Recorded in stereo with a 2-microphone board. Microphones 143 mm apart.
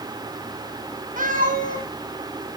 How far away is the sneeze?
No sneeze in this recording.